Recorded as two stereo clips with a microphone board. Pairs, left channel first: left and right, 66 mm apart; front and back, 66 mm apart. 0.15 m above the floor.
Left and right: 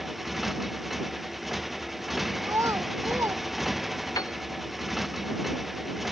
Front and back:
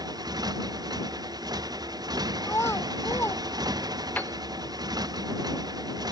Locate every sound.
0.0 s a motorcycle: 175° right
2.4 s a child speaking: 50° right
4.2 s a piano: 65° left